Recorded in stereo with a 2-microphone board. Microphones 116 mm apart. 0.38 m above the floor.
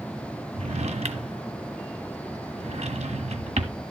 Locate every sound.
0.5 s a drawer: 70° right (ahead or behind), 1.3 m